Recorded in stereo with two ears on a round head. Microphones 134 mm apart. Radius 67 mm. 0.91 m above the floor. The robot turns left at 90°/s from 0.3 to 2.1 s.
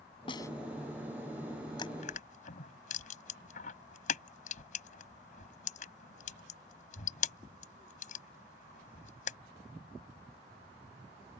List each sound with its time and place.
0.3 s a snare drum: 35° left (ahead or behind); by 0.5 s 20° left (ahead or behind)
1.8 s crushing: 30° left (ahead or behind); by 9.4 s 60° left (ahead or behind)